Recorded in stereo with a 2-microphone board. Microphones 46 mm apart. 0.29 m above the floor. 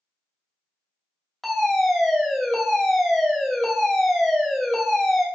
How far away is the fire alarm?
About 2.5 m.